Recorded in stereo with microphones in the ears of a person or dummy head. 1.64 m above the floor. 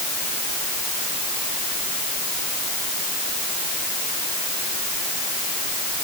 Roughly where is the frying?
I don't hear frying.